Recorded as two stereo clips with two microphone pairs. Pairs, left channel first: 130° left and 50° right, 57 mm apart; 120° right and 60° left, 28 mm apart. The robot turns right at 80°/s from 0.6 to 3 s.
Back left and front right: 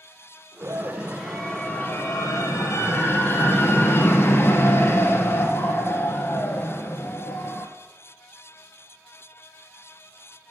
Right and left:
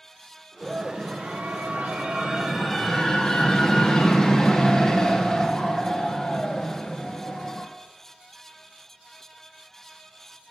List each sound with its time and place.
0.6 s a scream: 20° right, 2 m; by 7.7 s 170° left, 2 m